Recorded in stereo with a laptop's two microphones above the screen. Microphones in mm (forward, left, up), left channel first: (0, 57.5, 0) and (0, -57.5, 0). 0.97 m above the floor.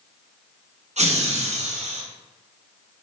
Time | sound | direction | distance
1.0 | laughter | 75° right (ahead or behind) | 0.8 m